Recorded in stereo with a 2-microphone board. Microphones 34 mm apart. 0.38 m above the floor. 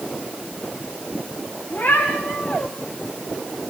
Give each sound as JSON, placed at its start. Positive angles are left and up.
{"t": 1.7, "sound": "a cat meowing", "side_deg": 50, "distance_m": 8.0}